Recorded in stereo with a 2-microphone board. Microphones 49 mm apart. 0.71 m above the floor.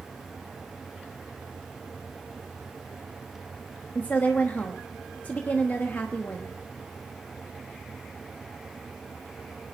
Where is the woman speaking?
35° left (ahead or behind), 1.1 m.